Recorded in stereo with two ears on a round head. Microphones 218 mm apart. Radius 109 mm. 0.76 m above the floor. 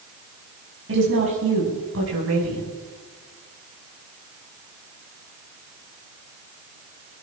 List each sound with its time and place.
0.9 s a woman speaking: 55° right (ahead or behind), 5 m; by 2.7 s 65° right (ahead or behind), 5 m